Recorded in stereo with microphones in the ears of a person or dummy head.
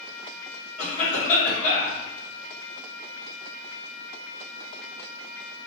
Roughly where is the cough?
Left.